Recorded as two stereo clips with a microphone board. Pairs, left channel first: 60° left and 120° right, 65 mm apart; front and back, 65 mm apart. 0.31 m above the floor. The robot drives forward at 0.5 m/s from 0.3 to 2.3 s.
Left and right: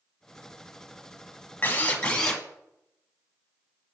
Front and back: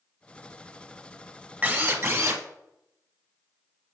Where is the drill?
120° left, 0.7 m; by 2.4 s 140° left, 0.9 m.